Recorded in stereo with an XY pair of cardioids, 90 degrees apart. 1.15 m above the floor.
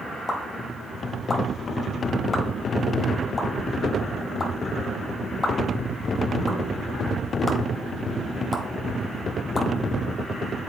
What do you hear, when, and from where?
0.3 s a pop: 30° left, 1.4 m